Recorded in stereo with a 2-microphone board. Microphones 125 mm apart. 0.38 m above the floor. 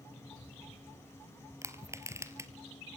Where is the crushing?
25° right (ahead or behind), 1.8 m.